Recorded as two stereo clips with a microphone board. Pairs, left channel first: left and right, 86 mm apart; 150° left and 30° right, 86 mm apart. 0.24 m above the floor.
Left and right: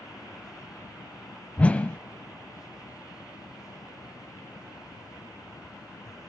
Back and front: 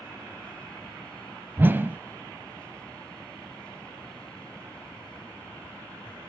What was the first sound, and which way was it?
A whoosh, 25° left.